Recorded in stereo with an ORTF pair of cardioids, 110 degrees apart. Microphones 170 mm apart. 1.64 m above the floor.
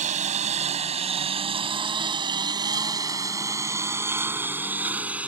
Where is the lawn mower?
50° right; by 5.3 s 5° right.